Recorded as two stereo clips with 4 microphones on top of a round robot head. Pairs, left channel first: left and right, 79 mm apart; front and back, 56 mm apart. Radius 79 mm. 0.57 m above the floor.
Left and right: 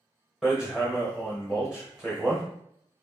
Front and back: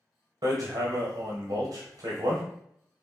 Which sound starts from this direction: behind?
Hammering, at 0.4 s.